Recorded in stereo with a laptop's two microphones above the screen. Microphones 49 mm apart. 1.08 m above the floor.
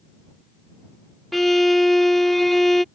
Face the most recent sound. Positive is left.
turn(degrees=5)  # may be behind; listen again after turning